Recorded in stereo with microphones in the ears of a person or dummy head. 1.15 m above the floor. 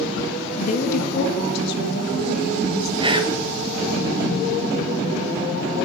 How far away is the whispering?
About 0.8 m.